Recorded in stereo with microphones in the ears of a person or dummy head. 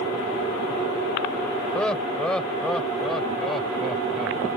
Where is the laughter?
10° left (ahead or behind); by 4.5 s centre (ahead or behind).